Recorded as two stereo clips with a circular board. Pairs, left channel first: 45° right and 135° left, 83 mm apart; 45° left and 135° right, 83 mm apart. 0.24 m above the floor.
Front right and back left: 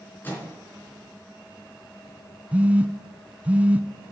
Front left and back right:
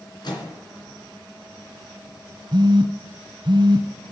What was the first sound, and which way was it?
A microwave, 20° left.